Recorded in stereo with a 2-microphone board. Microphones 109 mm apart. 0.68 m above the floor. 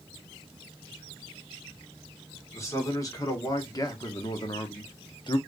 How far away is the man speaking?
About 1.8 m.